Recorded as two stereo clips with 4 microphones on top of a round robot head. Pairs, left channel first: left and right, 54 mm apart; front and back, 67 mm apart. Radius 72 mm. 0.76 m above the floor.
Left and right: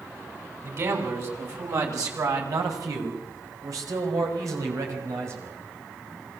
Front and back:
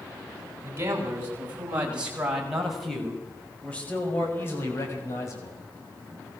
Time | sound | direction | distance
0.6 | a man speaking | 125° right | 7 m